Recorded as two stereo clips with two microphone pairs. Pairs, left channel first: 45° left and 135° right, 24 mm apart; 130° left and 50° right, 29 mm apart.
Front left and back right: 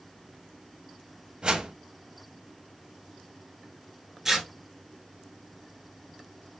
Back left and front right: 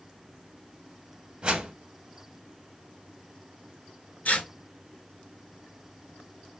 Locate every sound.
1.4 s a whoosh: 90° right, 0.6 m
4.2 s tearing paper: 150° left, 0.7 m